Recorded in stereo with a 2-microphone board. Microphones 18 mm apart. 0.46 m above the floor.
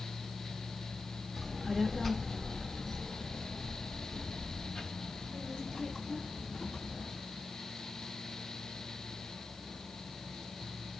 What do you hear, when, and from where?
1.4 s a child speaking: centre (ahead or behind), 1.0 m; by 7.2 s 65° left (ahead or behind), 4 m